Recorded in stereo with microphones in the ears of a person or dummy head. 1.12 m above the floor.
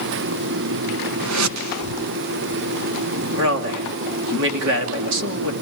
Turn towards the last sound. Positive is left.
turn(degrees=-65)  # may be behind; listen again after turning